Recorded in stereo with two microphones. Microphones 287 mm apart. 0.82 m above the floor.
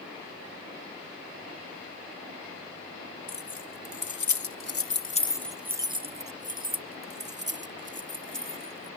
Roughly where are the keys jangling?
Left.